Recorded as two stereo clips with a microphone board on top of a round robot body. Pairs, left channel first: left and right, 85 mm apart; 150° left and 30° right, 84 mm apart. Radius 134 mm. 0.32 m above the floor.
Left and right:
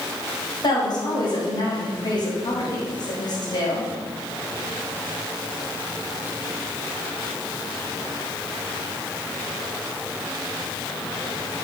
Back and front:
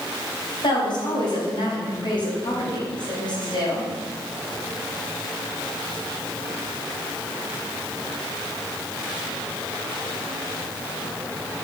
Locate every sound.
0.6 s a woman speaking: 125° left, 2.5 m